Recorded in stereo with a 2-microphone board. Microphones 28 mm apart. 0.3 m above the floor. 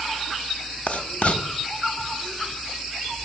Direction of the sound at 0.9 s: 55° left (ahead or behind).